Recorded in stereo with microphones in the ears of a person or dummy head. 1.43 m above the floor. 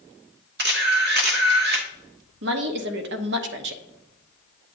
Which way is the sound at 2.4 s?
65° right (ahead or behind).